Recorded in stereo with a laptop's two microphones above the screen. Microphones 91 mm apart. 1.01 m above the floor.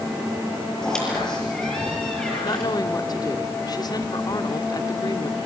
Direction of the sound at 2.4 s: 45° left (ahead or behind).